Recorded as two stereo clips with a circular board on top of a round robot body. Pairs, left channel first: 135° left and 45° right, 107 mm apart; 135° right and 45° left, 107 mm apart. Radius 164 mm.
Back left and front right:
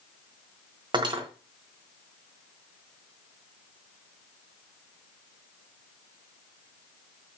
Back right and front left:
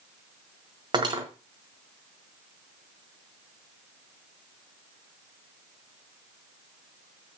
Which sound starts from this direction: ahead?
Cutlery clinking, at 0.9 s.